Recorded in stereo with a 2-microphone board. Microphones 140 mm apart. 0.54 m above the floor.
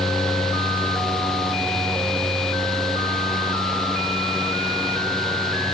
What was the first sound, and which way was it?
Only background noise.